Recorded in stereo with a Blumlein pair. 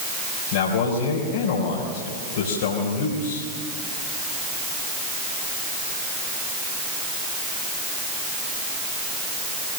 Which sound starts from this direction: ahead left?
A man speaking, at 0.5 s.